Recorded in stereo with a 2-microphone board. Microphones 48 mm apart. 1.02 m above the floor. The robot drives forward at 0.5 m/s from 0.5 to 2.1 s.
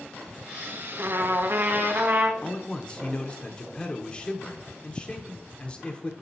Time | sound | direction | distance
1.0 | a trumpet | 55° right (ahead or behind) | 0.6 m
2.4 | a man speaking | 20° left (ahead or behind) | 0.7 m